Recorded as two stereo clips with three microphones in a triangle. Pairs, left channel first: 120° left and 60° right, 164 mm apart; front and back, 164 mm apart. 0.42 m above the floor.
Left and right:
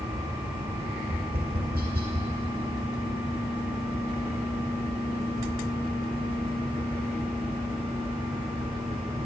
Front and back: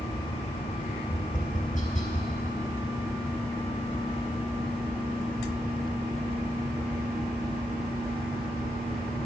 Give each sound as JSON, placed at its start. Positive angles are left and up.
{"t": 1.1, "sound": "tapping", "azimuth_deg": -40, "distance_m": 2.0}